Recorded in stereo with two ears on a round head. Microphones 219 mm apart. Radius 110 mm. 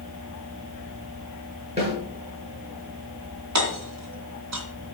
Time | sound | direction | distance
1.8 | a snare drum | 25° right (ahead or behind) | 8 m
3.5 | hammering | 75° right (ahead or behind) | 3 m